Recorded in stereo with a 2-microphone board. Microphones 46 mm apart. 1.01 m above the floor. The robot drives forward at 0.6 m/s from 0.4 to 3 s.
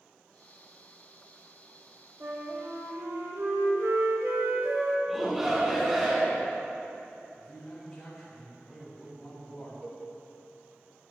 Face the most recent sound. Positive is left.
turn(degrees=-50)  # may be behind; listen again after turning